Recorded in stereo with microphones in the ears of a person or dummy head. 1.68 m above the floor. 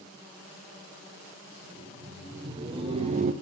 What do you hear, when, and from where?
1.6 s laughter: 20° right (ahead or behind), 1.9 m; by 3.3 s 45° right (ahead or behind), 0.5 m